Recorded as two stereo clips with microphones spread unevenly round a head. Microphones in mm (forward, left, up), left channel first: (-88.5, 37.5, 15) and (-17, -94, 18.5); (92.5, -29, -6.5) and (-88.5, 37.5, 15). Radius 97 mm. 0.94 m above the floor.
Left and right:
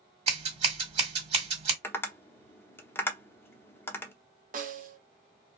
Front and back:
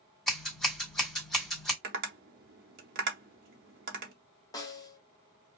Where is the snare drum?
90° right, 0.9 m.